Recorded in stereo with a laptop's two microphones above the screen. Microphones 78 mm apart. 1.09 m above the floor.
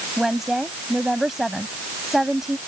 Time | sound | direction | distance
0.2 | a woman speaking | 5° right (ahead or behind) | ?